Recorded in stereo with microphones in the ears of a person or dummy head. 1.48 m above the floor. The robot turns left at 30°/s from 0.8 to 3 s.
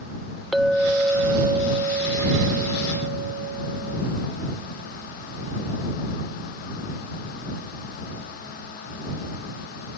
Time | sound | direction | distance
0.5 | a clink | straight ahead | ?